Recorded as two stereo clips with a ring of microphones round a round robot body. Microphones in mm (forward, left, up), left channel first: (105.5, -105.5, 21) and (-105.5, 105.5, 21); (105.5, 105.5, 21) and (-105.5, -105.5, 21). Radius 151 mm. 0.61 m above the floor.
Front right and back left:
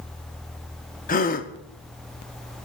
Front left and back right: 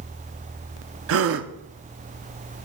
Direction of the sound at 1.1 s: 105° right.